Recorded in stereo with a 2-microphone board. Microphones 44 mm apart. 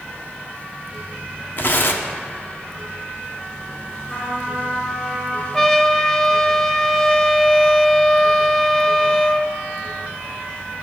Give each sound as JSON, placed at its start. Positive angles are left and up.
{"t": 1.6, "sound": "tearing paper", "side_deg": 55, "distance_m": 0.7}
{"t": 4.1, "sound": "a trumpet", "side_deg": 15, "distance_m": 3.0}
{"t": 5.5, "sound": "a trumpet", "side_deg": 10, "distance_m": 0.5}